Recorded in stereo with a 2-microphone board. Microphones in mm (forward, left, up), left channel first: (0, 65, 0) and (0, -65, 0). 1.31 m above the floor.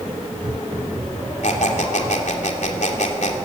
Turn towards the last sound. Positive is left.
turn(degrees=65)  # may be behind; listen again after turning